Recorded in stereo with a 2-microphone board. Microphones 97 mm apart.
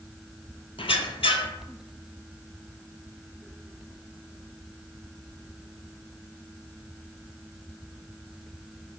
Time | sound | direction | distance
0.8 | a squeak | 75° left (ahead or behind) | 0.5 m